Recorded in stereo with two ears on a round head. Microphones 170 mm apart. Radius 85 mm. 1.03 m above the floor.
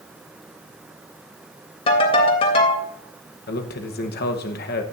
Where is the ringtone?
30° left (ahead or behind), 3 m.